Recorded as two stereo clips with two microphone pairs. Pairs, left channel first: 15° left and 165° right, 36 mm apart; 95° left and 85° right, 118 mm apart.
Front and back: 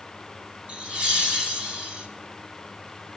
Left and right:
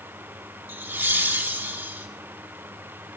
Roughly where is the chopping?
I don't hear chopping.